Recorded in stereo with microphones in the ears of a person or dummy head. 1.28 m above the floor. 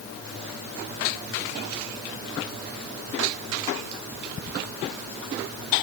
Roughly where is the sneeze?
No sneeze in this recording.